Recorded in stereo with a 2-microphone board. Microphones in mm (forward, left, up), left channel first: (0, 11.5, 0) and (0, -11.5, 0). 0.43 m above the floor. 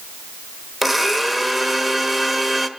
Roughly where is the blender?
Centre.